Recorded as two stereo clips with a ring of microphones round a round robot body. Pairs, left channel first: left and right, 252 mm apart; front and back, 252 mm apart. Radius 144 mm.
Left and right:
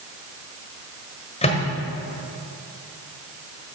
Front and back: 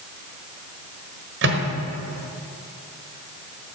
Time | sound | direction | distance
1.4 | a microwave | 150° left | 1.3 m